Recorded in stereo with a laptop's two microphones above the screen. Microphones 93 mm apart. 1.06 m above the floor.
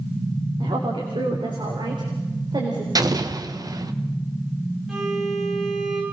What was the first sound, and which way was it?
A woman speaking, 70° right (ahead or behind).